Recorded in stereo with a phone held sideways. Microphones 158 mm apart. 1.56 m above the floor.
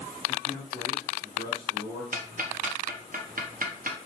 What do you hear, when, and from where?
0.3 s a man speaking: 65° right (ahead or behind), 1.1 m
2.1 s ticking: 60° right (ahead or behind), 0.7 m